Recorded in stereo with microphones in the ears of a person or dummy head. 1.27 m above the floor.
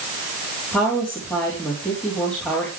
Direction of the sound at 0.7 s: 10° left (ahead or behind).